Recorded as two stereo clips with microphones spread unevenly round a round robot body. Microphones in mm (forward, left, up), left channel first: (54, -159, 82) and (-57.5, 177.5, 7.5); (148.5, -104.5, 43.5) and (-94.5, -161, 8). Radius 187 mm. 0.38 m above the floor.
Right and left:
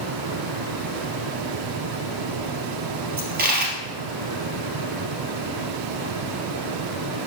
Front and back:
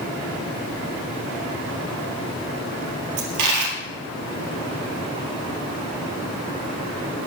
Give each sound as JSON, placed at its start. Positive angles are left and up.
{"t": 3.2, "sound": "a dropped coin", "azimuth_deg": 175, "distance_m": 1.8}